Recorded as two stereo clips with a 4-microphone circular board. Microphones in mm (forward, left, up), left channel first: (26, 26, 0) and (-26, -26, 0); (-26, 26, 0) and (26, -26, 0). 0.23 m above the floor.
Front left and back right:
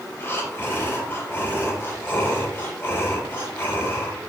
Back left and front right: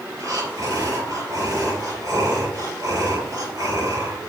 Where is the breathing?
10° right, 4.5 m.